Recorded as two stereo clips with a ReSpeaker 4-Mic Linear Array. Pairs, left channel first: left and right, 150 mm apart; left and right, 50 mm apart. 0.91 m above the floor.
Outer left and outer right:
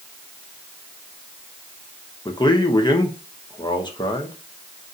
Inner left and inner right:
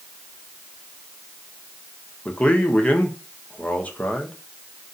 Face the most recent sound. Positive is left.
turn(degrees=30)  # may be behind; listen again after turning